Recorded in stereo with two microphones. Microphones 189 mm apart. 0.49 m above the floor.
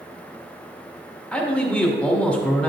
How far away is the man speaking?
About 1.1 m.